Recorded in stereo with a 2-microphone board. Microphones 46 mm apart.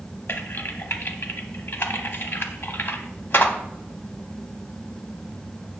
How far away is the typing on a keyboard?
About 0.6 m.